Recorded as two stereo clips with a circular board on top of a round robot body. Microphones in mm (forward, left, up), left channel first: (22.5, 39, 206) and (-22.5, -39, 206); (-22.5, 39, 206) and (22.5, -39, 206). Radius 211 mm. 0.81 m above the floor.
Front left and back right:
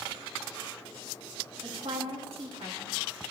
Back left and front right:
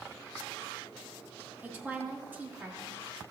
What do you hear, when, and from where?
1.6 s a woman speaking: 130° right, 1.6 m